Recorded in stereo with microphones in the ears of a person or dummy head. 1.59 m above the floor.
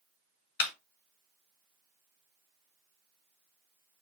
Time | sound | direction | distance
0.6 | a clap | 55° left (ahead or behind) | 1.4 m